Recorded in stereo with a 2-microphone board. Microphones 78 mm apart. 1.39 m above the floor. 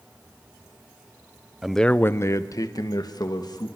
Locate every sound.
1.6 s a man speaking: 5° right (ahead or behind), 0.6 m; by 3.7 s 60° left (ahead or behind), 2.5 m